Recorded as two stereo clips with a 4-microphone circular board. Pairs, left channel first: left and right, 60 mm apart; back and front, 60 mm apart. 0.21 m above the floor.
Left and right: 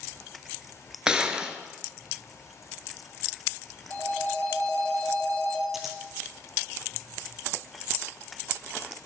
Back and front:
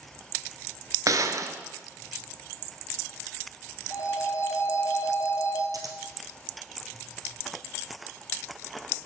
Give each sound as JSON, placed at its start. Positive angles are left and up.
{"t": 1.1, "sound": "a gunshot", "azimuth_deg": -15, "distance_m": 0.7}
{"t": 3.9, "sound": "a phone ringing", "azimuth_deg": 150, "distance_m": 1.9}
{"t": 5.7, "sound": "scissors", "azimuth_deg": -5, "distance_m": 1.1}